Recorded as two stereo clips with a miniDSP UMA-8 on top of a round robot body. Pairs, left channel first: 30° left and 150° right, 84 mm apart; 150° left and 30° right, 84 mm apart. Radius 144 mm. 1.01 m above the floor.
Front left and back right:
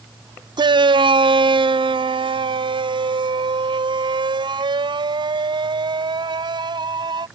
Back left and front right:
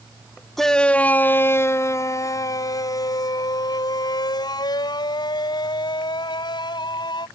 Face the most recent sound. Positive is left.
turn(degrees=180)